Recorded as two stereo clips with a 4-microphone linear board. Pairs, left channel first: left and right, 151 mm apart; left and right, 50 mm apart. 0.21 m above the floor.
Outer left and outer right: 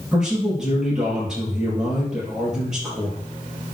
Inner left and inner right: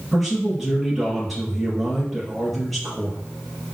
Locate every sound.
0.1 s a man speaking: 5° right (ahead or behind), 4.5 m